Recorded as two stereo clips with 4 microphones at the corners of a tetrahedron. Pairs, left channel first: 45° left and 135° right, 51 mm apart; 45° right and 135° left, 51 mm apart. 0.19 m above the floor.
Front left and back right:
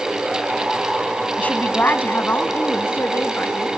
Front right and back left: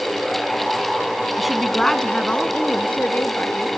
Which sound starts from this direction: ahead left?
A woman speaking, at 1.4 s.